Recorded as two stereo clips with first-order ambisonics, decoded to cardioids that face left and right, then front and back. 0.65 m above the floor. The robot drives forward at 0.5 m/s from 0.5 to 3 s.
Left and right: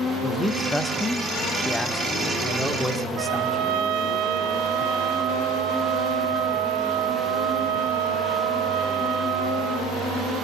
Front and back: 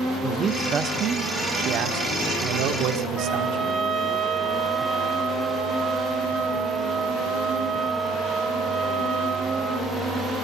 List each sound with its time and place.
0.2 s a man speaking: 160° left, 1.0 m; by 3.7 s 175° left, 1.8 m
3.1 s a trumpet: 110° right, 2 m